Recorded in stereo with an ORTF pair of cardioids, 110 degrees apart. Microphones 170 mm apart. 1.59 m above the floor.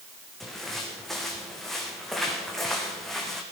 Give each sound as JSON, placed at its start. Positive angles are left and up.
{"t": 0.4, "sound": "footsteps", "azimuth_deg": 0, "distance_m": 5.0}